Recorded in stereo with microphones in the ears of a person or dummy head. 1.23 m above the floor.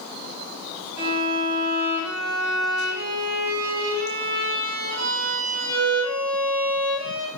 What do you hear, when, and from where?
1.0 s a violin: 75° right (ahead or behind), 5.5 m